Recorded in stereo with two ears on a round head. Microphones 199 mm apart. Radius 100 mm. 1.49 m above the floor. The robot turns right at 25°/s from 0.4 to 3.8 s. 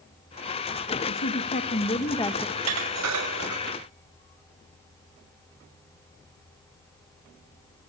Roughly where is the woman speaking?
Behind left.